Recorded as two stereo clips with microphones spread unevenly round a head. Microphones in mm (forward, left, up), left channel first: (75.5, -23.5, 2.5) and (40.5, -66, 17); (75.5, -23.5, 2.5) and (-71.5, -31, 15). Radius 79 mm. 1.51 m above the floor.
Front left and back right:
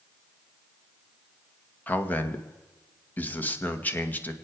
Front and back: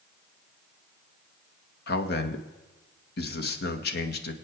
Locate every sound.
1.9 s a man speaking: 10° right, 1.9 m